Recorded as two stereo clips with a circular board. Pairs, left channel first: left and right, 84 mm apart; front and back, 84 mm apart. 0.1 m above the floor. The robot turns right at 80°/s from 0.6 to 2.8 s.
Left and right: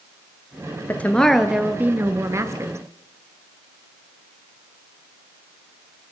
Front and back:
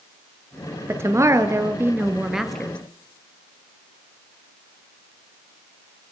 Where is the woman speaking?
140° left, 1.6 m; by 2.8 s 65° right, 1.6 m.